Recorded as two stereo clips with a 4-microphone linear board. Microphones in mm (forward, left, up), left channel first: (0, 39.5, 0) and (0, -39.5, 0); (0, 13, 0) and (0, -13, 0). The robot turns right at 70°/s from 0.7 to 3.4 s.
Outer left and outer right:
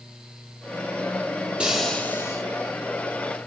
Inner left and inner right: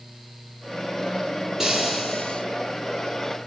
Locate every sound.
1.6 s frying: 15° right, 7 m; by 2.4 s 45° left, 7 m